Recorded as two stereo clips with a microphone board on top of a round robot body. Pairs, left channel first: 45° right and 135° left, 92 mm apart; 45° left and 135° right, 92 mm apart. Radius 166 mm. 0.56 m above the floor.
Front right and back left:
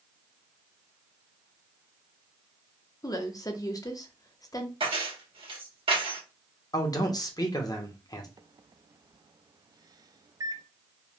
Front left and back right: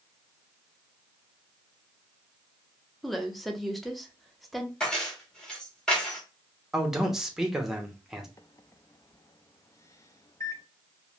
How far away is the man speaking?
About 1.0 m.